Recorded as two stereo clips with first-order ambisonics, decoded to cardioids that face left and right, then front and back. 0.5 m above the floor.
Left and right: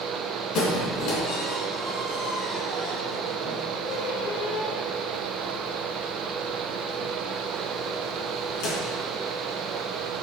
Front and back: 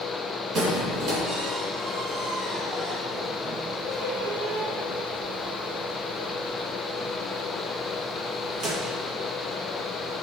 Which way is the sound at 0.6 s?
130° left.